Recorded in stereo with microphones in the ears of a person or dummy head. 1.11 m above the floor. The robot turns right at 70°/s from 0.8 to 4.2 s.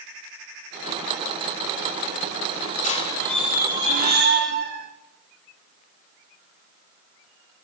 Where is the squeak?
135° left, 0.8 m; by 4.9 s 130° right, 0.8 m.